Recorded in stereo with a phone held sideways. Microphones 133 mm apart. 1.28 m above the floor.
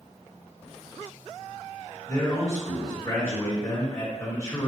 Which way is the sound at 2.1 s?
20° left (ahead or behind).